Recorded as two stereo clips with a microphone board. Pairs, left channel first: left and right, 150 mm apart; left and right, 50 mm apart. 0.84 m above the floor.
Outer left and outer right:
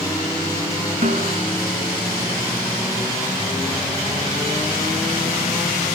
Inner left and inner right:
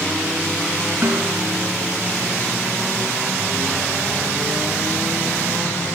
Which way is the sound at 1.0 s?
55° right (ahead or behind).